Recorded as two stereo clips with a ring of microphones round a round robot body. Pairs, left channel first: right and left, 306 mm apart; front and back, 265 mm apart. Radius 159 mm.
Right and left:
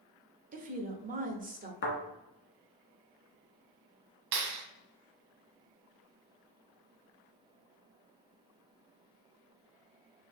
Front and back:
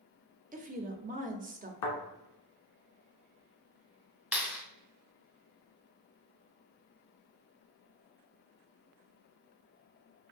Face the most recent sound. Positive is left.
turn(degrees=95)